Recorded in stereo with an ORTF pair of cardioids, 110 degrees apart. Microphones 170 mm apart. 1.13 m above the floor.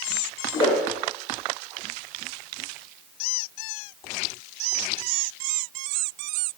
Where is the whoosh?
30° left, 0.7 m.